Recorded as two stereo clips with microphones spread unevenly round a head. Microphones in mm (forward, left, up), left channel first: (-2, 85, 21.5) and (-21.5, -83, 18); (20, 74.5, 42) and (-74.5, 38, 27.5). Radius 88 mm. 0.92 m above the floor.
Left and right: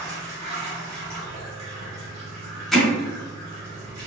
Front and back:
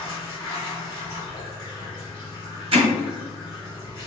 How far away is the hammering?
About 1.4 m.